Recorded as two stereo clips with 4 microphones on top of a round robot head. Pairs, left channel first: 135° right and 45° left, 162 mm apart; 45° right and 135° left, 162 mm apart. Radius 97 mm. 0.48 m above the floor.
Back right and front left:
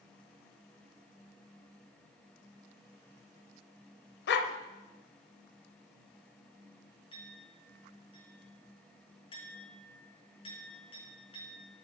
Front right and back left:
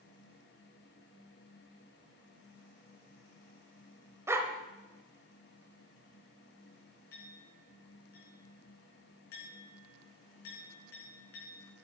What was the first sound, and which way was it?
A dog barking, 150° right.